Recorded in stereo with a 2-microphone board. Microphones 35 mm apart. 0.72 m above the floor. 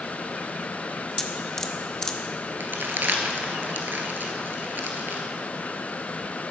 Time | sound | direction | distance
1.2 | dripping | 15° left (ahead or behind) | 0.9 m
2.6 | crumpling | 70° right (ahead or behind) | 1.8 m